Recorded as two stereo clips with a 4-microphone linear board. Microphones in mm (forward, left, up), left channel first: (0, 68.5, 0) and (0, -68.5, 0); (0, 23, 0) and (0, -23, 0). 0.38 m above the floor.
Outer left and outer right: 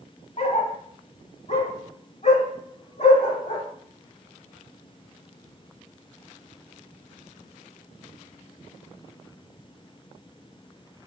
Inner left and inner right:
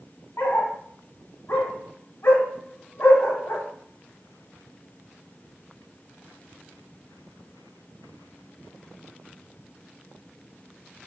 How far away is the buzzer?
No buzzer in this recording.